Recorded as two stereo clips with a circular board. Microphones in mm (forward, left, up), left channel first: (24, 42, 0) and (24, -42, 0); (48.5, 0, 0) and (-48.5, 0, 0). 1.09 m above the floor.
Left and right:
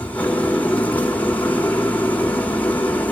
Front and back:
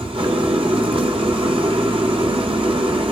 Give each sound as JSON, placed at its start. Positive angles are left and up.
{"t": 0.0, "sound": "an engine running", "azimuth_deg": 160, "distance_m": 2.0}